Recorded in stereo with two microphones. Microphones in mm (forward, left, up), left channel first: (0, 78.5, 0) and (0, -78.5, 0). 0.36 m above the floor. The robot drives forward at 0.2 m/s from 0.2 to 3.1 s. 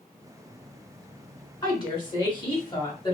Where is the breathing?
I don't hear breathing.